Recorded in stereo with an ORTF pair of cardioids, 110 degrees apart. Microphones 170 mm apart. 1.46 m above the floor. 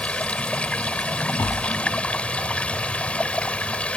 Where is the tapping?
15° left.